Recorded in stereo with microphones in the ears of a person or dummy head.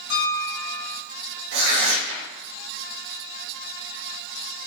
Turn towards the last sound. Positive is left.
turn(degrees=-65)  # may be behind; listen again after turning